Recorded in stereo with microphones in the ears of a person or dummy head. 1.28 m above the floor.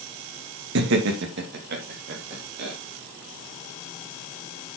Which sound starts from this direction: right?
Laughter, at 0.8 s.